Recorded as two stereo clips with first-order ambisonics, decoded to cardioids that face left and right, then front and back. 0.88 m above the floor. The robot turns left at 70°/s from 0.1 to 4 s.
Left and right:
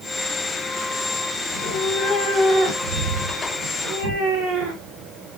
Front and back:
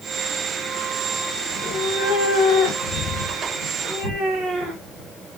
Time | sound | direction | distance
1.5 | a cat meowing | 70° left | 1.6 m